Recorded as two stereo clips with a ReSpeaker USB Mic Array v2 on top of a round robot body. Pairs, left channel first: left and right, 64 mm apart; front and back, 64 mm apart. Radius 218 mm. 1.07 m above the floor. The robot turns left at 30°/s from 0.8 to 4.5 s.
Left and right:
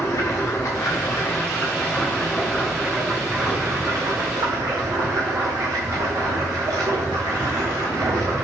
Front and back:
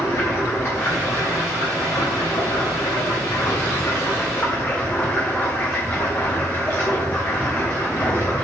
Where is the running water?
50° left, 0.9 m; by 8.4 s 60° right, 0.9 m.